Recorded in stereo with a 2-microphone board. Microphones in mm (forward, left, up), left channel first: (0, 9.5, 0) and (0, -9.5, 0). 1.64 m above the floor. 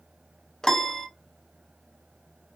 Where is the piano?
30° left (ahead or behind), 0.5 m.